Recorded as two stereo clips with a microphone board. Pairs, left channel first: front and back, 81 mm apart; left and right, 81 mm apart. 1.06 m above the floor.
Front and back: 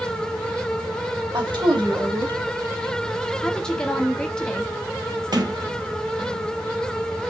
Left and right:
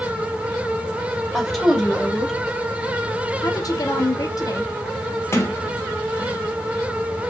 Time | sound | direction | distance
1.3 | a woman speaking | straight behind | 3 m
3.4 | a woman speaking | 80° left | 1.0 m
5.3 | a sliding door | 145° left | 1.1 m